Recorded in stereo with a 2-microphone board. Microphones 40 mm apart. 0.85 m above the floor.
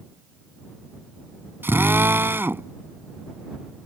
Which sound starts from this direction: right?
A drill, at 1.6 s.